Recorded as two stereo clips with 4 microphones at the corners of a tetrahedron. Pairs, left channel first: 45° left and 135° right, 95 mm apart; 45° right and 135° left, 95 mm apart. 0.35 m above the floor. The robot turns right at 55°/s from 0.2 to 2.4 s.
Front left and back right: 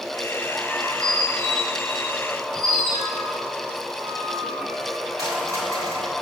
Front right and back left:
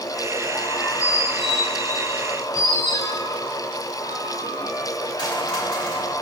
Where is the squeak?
Straight behind, 2.5 m; by 6.1 s 85° right, 2.5 m.